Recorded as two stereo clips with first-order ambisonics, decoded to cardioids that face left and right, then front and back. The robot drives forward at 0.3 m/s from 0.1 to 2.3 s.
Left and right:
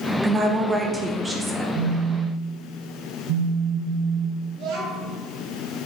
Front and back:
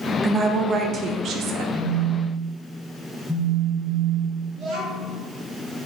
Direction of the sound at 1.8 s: 90° right.